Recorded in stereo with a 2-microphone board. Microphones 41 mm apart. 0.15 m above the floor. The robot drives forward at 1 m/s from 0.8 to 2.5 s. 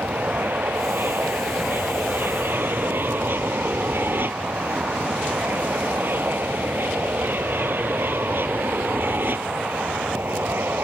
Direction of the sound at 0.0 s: 60° right (ahead or behind).